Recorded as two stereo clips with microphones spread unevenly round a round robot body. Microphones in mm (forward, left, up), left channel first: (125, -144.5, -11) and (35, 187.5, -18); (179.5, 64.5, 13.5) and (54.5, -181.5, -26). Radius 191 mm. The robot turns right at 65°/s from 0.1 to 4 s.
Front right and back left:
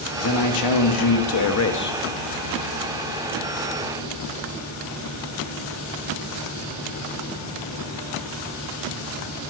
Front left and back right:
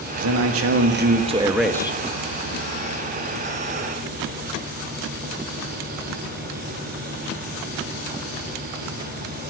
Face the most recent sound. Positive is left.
turn(degrees=120)